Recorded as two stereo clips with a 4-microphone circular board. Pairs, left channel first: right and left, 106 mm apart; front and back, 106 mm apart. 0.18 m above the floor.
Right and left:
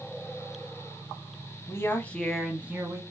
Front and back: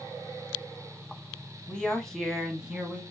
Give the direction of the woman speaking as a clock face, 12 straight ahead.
2 o'clock.